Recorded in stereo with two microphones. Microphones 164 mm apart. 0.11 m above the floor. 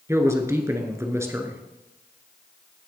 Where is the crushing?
No crushing in this recording.